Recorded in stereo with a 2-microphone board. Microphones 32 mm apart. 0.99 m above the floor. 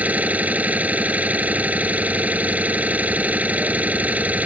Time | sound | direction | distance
0.0 | an engine running | 55° right (ahead or behind) | ?